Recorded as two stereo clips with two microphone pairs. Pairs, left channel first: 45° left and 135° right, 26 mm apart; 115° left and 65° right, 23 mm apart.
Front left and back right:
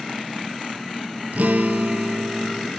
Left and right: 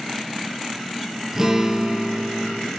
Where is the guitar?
135° right, 3 m.